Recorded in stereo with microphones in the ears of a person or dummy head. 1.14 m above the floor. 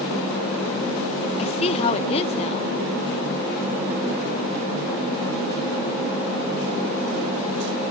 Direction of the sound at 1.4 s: 30° left (ahead or behind).